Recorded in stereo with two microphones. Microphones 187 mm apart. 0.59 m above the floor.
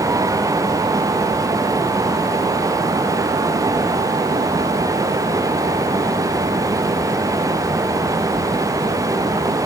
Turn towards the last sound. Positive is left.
No sound to turn to.